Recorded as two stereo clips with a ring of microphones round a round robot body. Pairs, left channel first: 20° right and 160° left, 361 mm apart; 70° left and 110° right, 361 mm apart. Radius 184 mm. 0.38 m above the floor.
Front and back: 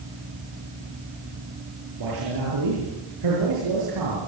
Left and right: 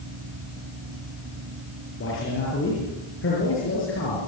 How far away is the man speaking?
About 8 m.